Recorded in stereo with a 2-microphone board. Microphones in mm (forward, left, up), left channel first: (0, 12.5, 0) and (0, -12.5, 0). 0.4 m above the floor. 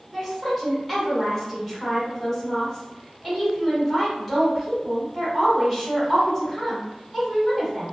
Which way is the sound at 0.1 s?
15° left (ahead or behind).